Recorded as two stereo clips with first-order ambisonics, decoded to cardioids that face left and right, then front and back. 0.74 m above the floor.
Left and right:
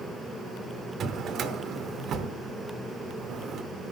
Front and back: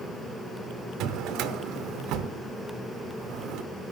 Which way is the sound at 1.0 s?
145° right.